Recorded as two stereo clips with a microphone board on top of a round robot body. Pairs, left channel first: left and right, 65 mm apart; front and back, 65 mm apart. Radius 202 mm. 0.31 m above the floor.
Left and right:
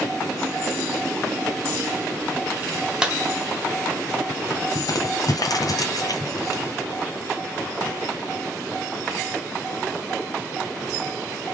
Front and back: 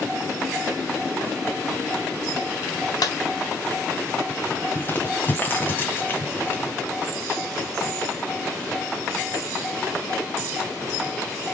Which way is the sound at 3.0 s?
15° right.